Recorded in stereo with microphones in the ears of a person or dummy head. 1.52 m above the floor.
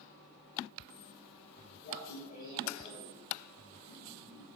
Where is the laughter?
50° left (ahead or behind), 8.5 m.